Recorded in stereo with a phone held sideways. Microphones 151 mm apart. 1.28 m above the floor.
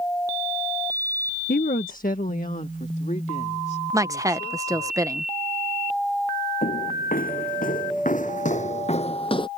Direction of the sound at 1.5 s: 70° left (ahead or behind).